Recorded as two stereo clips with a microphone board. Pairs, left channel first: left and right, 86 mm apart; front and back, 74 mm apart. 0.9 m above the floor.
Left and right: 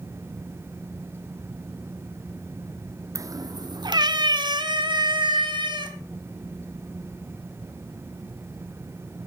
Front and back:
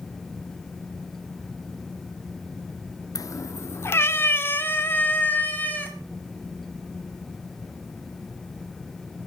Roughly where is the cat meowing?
Ahead right.